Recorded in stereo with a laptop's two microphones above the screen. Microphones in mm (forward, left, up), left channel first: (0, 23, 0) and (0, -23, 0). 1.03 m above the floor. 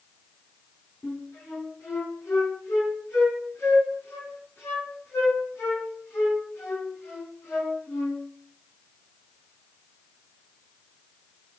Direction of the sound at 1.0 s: 80° left.